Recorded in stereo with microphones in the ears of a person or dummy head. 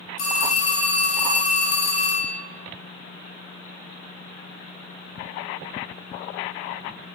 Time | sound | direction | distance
0.2 | a phone ringing | 45° left (ahead or behind) | 0.8 m